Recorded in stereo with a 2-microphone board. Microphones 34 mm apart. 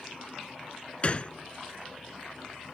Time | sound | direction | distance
1.0 | a gunshot | 35° left (ahead or behind) | ?